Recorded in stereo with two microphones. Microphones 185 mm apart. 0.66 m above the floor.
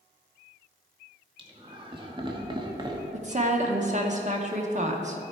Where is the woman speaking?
40° right (ahead or behind), 0.9 m.